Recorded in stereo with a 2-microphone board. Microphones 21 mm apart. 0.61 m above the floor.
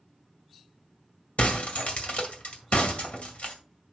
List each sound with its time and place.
1.4 s breaking glass: 75° left (ahead or behind), 2.0 m